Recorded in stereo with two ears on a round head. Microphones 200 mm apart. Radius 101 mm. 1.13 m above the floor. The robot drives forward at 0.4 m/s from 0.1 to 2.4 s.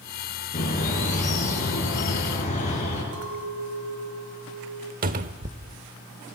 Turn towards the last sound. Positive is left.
turn(degrees=-40)  # may be behind; listen again after turning